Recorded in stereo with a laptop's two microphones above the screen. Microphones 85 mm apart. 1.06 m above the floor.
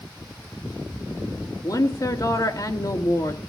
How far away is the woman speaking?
About 3 m.